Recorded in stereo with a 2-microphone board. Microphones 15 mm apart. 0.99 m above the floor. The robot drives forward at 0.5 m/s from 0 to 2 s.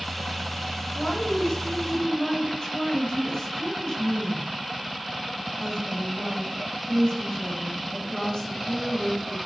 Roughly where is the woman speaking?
Left.